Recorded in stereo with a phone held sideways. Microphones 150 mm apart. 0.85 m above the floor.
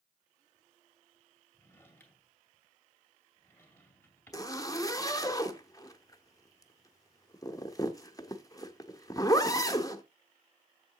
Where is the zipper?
25° left (ahead or behind), 0.8 m.